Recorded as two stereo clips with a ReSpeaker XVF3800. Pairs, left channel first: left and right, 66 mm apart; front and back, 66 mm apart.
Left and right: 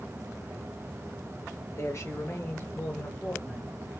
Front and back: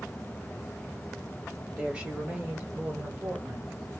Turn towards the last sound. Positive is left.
turn(degrees=175)